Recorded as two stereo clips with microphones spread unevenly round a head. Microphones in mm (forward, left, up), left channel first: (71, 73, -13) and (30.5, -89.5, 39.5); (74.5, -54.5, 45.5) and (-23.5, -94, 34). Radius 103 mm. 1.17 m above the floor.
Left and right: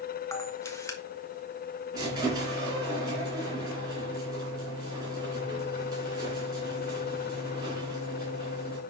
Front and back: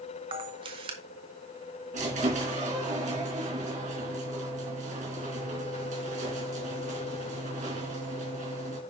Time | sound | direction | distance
0.3 | a camera shutter | 150° left | 0.8 m
1.9 | a squeak | 170° right | 3 m